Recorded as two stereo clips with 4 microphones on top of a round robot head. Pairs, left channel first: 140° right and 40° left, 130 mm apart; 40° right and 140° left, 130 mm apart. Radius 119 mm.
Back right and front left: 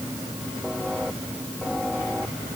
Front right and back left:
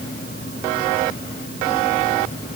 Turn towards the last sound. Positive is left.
No sound to turn to.